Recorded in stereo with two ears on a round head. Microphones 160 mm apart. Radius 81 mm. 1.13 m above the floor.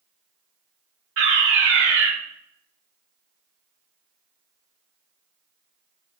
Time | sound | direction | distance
1.2 | a fire alarm | 70° right (ahead or behind) | 4.5 m